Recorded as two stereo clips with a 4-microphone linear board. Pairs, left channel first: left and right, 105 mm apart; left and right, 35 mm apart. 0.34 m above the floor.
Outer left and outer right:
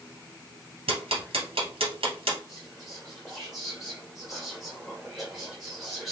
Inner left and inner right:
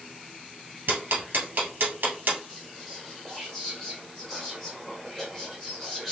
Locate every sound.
0.9 s ticking: 65° right (ahead or behind), 2 m
2.5 s whispering: centre (ahead or behind), 1.5 m